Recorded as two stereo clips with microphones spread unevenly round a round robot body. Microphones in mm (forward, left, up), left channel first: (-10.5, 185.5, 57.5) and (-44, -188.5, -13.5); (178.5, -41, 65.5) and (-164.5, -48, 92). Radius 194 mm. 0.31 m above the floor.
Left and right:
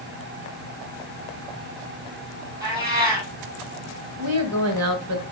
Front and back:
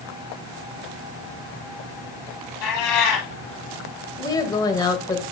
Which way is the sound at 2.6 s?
15° right.